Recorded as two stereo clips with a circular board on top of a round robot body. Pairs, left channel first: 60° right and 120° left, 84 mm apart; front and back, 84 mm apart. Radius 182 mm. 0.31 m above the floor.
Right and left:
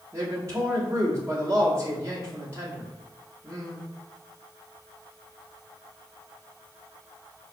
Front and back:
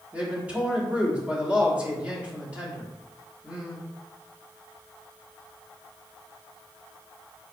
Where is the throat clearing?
I don't hear throat clearing.